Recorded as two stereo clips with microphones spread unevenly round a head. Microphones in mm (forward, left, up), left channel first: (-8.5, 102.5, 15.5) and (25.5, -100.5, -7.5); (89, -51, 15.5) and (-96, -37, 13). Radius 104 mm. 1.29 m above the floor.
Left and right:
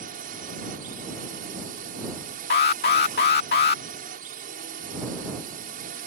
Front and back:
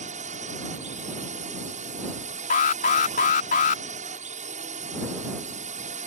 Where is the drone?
135° right.